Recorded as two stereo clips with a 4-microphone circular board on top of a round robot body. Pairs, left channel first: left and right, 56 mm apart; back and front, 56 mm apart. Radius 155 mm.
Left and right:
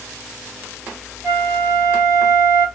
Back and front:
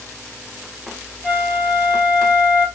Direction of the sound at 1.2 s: 90° right.